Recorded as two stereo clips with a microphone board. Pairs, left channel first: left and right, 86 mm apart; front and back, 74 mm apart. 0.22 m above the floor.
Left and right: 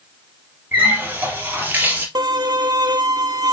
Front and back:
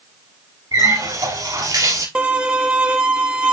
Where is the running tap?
155° right, 3 m.